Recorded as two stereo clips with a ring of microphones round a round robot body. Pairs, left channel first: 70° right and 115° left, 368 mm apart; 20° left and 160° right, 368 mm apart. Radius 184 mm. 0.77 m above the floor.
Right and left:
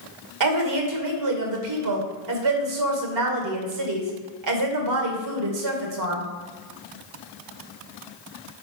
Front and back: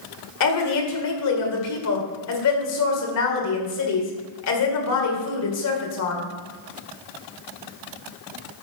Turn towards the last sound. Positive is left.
turn(degrees=70)